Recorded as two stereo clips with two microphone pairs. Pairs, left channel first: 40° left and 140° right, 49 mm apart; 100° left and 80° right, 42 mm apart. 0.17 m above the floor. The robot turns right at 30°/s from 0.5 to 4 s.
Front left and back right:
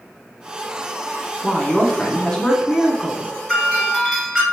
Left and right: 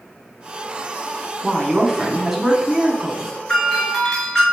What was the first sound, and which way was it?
A woman speaking, 25° right.